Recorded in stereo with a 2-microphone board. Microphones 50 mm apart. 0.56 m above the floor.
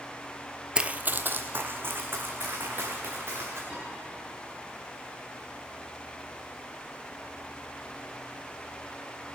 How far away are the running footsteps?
About 0.5 m.